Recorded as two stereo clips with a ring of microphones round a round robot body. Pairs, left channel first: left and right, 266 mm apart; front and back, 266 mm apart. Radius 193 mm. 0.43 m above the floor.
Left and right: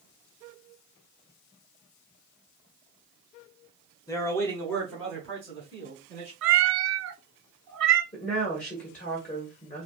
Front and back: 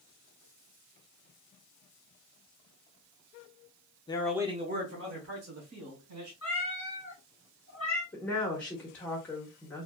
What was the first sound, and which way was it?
A man speaking, 35° left.